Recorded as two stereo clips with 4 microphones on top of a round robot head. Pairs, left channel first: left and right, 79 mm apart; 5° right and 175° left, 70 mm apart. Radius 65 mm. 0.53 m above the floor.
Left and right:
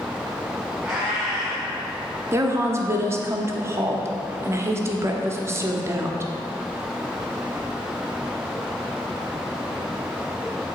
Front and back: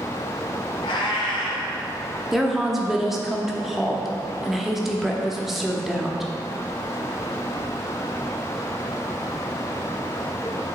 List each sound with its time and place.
0.8 s a cat meowing: 5° right, 1.5 m
2.3 s a woman speaking: 100° right, 0.8 m